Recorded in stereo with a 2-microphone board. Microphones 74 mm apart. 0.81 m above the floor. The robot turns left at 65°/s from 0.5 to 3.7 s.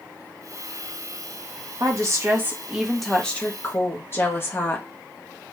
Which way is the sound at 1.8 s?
100° right.